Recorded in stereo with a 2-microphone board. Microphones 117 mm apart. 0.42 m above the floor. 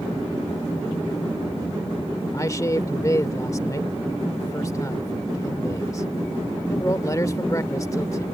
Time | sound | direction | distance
2.3 | a man speaking | 30° left (ahead or behind) | ?